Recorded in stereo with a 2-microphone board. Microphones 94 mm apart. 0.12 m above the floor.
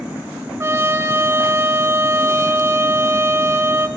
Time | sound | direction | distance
0.6 | a trumpet | 30° right (ahead or behind) | 0.8 m